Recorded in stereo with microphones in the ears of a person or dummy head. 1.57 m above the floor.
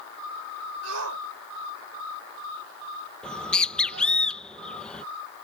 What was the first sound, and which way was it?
A shout, 80° right.